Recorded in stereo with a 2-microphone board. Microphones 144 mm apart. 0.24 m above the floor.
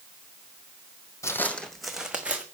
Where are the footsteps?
20° left (ahead or behind), 0.7 m; by 2.5 s 10° right (ahead or behind), 1.4 m.